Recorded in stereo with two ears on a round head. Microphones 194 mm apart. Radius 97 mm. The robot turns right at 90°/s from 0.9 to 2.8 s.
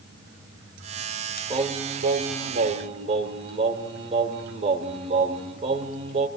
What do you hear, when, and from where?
1.5 s singing: 155° right, 1.6 m; by 6.3 s 40° right, 1.6 m